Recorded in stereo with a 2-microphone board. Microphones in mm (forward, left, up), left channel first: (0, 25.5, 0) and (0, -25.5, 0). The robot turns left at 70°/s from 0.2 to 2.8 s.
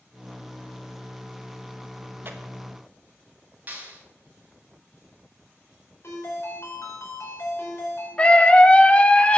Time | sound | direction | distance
2.2 | tearing paper | 45° right (ahead or behind) | 1.2 m
3.7 | a clap | 35° right (ahead or behind) | 5 m
6.0 | a ringtone | 60° left (ahead or behind) | 5.5 m
8.2 | a scream | 25° left (ahead or behind) | 1.0 m